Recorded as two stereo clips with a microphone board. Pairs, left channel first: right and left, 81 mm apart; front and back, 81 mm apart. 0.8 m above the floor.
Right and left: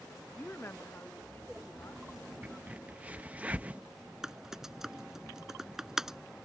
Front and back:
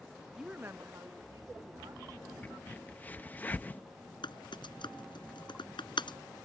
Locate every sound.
0.4 s a woman speaking: 110° right; by 2.3 s 145° right
2.4 s a crack: 40° left
4.2 s typing on a keyboard: 5° left